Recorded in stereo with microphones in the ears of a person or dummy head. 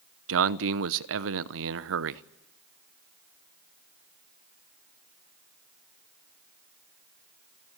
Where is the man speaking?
70° right (ahead or behind), 0.9 m.